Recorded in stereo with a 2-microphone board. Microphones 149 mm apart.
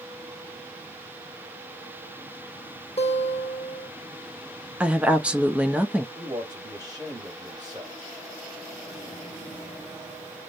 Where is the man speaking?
25° right (ahead or behind), 3 m.